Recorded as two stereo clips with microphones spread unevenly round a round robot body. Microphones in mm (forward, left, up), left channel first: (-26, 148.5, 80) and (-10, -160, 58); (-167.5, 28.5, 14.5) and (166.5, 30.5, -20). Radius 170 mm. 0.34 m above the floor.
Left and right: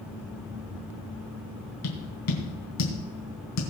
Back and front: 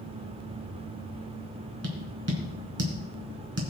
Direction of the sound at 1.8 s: 55° left.